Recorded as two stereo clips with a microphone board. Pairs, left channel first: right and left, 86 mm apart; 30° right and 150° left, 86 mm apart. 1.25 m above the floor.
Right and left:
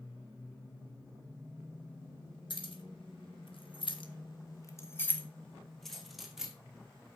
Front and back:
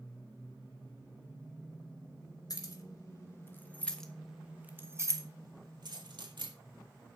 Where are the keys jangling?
70° right, 2.5 m; by 6.5 s 175° left, 2.5 m.